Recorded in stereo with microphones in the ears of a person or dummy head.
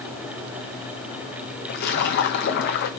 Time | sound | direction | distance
1.7 | a splash | 45° left (ahead or behind) | 1.2 m